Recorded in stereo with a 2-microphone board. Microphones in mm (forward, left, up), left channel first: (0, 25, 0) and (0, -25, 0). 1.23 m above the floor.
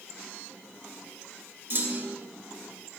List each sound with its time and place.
1.7 s a clunk: 50° right (ahead or behind), 1.1 m